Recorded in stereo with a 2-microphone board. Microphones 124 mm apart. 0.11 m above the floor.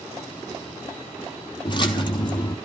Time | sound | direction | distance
1.6 | a splash | 40° left (ahead or behind) | 1.2 m